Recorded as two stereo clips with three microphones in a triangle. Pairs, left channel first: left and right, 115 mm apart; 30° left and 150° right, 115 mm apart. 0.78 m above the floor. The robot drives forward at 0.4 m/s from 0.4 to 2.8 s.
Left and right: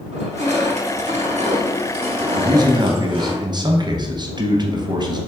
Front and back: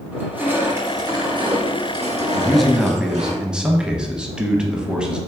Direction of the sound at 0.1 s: 75° right.